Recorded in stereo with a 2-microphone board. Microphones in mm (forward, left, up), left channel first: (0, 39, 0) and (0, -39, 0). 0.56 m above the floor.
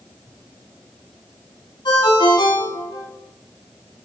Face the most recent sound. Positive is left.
turn(degrees=75)  # may be behind; listen again after turning